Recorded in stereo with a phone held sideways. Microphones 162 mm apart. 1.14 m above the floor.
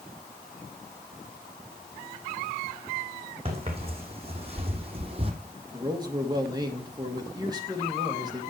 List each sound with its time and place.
3.5 s footsteps: 35° right (ahead or behind), 2.5 m
5.7 s a man speaking: 25° right (ahead or behind), 1.7 m